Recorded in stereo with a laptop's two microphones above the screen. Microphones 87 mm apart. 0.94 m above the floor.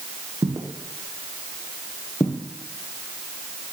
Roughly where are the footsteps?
Right.